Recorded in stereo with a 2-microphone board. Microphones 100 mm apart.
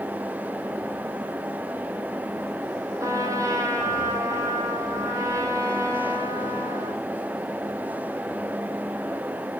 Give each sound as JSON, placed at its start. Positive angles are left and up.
{"t": 3.0, "sound": "a trumpet", "side_deg": -35, "distance_m": 2.5}